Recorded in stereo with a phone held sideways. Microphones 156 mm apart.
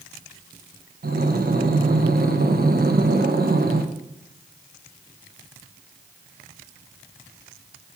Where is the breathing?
80° right, 0.7 m.